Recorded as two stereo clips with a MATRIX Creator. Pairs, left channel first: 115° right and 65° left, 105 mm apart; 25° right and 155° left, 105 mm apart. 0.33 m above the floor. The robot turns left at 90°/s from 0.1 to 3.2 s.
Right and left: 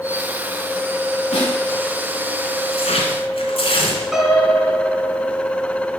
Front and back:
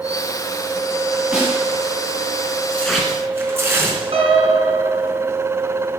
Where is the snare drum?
120° right, 8.5 m; by 1.6 s 145° right, 8.5 m.